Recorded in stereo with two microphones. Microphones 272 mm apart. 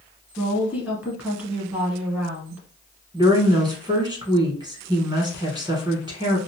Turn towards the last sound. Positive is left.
turn(degrees=-15)  # may be behind; listen again after turning